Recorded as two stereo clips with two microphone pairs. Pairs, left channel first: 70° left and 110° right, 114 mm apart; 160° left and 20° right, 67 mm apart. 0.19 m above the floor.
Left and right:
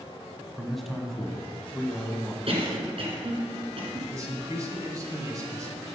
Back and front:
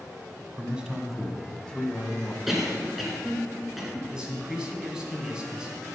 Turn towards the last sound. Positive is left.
turn(degrees=-90)